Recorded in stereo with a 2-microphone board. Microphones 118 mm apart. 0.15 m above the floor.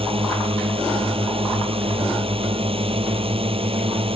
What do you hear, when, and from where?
0.0 s a drone: 55° right (ahead or behind)